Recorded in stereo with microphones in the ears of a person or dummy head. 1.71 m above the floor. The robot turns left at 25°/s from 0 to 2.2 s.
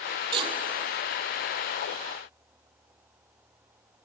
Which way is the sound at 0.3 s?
25° right (ahead or behind).